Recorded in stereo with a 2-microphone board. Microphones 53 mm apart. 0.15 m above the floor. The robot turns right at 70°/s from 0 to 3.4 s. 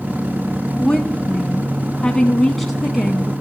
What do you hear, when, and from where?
0.8 s a woman speaking: 15° left (ahead or behind), 1.1 m; by 3.3 s 15° right (ahead or behind), 1.1 m